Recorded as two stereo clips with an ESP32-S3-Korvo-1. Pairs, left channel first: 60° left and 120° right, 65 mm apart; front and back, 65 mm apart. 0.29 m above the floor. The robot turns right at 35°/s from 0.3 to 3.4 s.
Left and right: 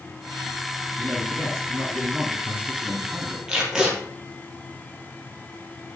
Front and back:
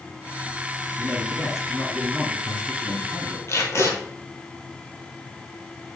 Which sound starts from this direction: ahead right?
Tape being pulled, at 3.5 s.